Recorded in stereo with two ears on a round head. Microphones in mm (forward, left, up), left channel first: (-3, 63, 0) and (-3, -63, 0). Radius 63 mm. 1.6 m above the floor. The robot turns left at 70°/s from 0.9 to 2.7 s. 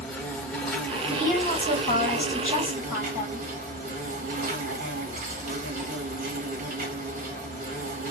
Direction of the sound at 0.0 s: 5° left.